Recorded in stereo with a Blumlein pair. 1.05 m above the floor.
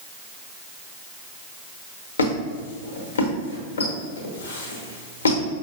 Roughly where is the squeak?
Left.